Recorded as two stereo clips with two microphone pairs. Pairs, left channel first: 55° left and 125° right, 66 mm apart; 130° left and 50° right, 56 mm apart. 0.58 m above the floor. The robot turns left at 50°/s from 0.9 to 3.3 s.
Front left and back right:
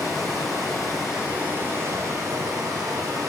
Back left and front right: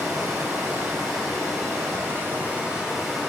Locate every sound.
0.0 s running water: 30° right, 2 m; by 3.3 s 150° right, 2 m